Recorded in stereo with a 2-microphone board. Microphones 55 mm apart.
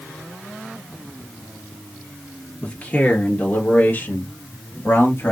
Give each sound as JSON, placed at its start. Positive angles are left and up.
{"t": 2.6, "sound": "a man speaking", "side_deg": 20, "distance_m": 2.5}